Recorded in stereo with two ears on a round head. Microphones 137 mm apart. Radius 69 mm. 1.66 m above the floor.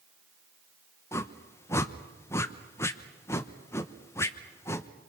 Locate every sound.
1.1 s a whoosh: 15° left (ahead or behind), 1.0 m